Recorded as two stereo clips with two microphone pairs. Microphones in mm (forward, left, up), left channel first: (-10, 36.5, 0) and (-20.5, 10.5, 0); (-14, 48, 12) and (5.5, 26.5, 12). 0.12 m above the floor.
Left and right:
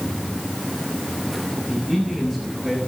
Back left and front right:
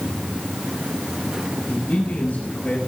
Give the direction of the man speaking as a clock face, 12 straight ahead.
7 o'clock.